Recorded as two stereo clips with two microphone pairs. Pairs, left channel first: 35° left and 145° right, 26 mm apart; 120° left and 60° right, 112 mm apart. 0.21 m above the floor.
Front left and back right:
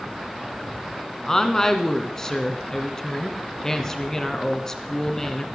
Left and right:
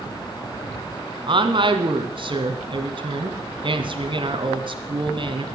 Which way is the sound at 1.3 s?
30° right.